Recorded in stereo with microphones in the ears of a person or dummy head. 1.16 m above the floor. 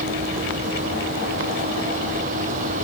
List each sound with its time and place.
0.0 s a vehicle: 45° right (ahead or behind)